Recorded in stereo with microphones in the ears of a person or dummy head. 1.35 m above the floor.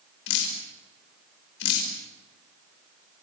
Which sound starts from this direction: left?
Dripping, at 0.3 s.